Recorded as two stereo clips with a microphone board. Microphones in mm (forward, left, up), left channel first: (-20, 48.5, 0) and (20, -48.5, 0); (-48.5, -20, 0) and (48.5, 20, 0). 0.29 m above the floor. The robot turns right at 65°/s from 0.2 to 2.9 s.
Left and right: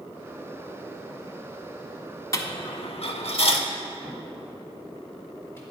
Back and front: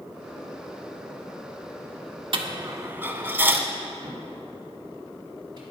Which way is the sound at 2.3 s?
55° left.